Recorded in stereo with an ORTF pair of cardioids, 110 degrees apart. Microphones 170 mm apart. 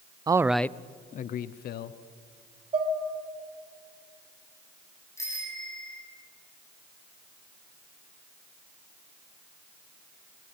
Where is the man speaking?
25° right, 0.7 m; by 2.0 s 70° left, 1.4 m.